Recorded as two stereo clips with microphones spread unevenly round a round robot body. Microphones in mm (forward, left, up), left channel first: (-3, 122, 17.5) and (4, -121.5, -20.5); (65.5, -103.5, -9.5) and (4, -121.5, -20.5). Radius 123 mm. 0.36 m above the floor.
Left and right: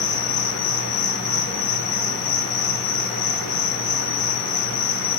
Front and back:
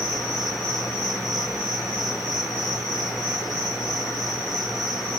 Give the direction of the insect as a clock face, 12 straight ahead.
8 o'clock.